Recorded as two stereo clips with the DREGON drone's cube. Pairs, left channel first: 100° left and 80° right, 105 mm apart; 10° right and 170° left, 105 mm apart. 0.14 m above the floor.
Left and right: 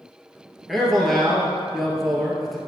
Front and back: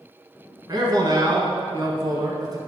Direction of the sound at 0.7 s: 170° right.